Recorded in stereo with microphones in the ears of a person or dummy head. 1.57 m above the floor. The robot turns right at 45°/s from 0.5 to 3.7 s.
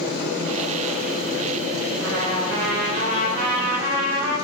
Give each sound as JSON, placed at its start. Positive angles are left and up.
{"t": 2.0, "sound": "a trumpet", "azimuth_deg": -90, "distance_m": 3.5}